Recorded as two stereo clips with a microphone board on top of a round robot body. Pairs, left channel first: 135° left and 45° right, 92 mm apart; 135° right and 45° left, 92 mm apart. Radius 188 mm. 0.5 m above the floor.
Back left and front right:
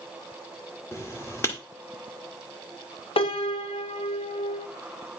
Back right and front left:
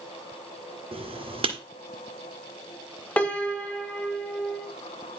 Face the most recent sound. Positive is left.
turn(degrees=150)